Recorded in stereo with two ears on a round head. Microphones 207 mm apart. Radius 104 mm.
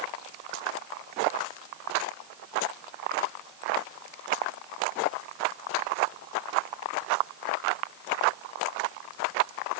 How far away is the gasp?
I don't hear a gasp.